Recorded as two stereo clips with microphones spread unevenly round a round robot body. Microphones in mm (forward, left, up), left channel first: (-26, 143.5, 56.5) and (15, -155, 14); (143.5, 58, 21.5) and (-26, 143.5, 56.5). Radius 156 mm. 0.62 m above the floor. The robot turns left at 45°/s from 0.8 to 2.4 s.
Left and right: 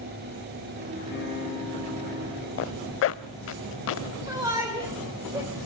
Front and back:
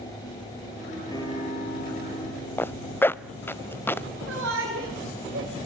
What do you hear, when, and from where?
1.1 s a guitar: 45° left, 7.5 m; by 3.6 s 15° right, 7.5 m
2.6 s a zipper: 60° left, 0.7 m
4.3 s a shout: 160° right, 3.5 m